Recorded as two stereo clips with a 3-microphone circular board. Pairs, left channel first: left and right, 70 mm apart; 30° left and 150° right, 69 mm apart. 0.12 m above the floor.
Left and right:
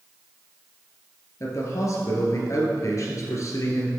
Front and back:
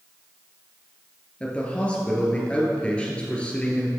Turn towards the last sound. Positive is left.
turn(degrees=100)